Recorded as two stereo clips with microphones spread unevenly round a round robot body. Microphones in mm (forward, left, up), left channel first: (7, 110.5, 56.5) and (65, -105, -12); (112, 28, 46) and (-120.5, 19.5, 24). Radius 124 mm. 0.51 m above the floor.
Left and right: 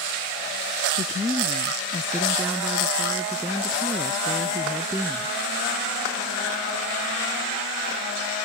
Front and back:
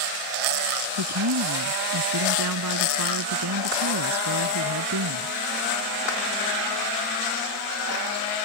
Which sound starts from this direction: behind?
A woman speaking, at 1.0 s.